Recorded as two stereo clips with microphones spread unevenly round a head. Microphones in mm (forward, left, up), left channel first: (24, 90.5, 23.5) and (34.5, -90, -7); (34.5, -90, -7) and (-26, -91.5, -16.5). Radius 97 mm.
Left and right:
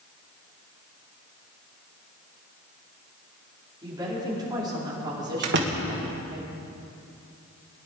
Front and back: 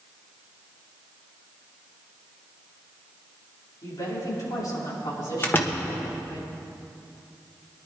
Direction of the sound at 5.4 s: 55° right.